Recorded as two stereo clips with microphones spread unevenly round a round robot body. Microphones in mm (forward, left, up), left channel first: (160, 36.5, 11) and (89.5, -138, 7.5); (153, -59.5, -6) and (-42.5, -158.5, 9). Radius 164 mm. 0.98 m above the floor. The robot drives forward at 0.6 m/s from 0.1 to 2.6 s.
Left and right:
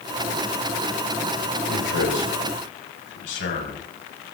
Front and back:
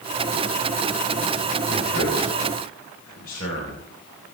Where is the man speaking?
85° left, 4 m; by 3.8 s 95° left, 4 m.